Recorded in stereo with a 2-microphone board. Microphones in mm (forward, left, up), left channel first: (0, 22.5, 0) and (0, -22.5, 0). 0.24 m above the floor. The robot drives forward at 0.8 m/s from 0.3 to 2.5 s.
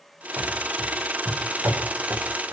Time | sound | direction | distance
0.4 | running footsteps | 60° right (ahead or behind) | 5.5 m